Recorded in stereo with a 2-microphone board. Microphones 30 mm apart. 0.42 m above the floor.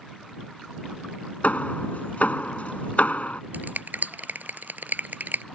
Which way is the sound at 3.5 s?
85° right.